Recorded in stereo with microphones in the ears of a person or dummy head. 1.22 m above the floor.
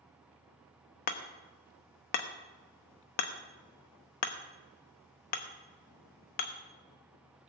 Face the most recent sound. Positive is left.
turn(degrees=50)  # may be behind; listen again after turning